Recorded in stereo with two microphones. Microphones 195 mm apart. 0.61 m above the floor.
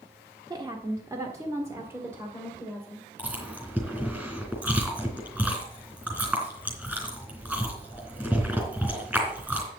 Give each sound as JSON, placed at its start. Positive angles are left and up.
{"t": 0.5, "sound": "a woman speaking", "side_deg": -20, "distance_m": 1.0}
{"t": 3.2, "sound": "chewing", "side_deg": -5, "distance_m": 3.0}